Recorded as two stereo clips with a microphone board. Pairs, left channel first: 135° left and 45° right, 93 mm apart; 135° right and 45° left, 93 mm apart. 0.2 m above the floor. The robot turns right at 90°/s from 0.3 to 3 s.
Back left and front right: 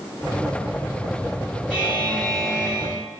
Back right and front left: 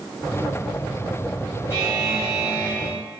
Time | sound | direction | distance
1.7 | a buzzer | 20° left | 1.2 m